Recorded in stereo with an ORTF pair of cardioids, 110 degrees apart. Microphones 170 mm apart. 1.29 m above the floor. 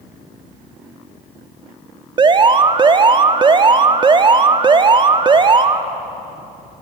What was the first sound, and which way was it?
An alarm, 30° right.